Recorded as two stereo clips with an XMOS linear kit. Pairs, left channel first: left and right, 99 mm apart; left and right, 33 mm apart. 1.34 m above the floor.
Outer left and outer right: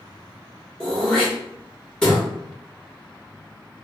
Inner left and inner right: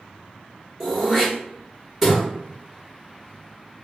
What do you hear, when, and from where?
0.8 s throat clearing: 10° left (ahead or behind), 1.4 m